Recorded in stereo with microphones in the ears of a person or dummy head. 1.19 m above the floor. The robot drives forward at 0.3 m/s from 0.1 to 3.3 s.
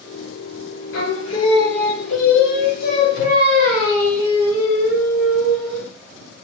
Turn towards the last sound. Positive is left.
turn(degrees=45)  # may be behind; listen again after turning